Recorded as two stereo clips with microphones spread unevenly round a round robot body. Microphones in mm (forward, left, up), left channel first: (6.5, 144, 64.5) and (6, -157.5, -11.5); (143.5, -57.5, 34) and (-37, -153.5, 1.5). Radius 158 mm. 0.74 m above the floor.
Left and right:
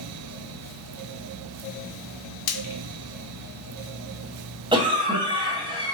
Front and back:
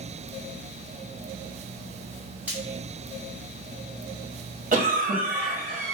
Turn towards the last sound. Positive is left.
turn(degrees=-145)